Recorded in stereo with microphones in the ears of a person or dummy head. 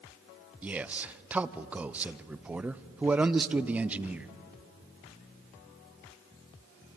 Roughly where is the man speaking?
Centre.